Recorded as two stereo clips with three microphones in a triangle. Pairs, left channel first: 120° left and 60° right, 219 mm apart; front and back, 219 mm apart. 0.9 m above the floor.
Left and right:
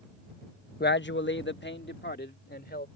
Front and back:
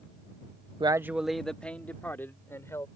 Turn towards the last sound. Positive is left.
turn(degrees=80)